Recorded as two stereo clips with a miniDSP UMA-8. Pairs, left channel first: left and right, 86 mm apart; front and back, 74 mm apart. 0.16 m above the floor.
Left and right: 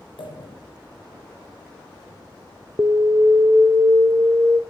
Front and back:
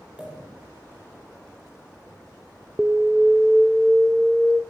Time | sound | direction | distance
0.2 | a pop | 105° left | 5 m
2.8 | an alarm | 105° right | 0.8 m